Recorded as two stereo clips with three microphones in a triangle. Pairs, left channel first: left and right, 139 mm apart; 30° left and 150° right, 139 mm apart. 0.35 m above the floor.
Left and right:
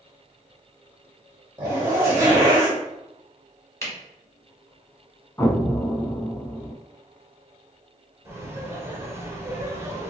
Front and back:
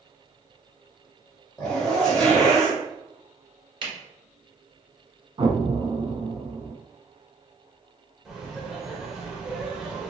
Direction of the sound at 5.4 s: 160° left.